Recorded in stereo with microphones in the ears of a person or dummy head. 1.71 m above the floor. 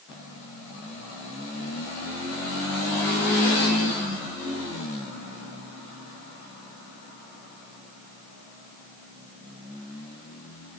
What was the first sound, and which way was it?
Only background noise.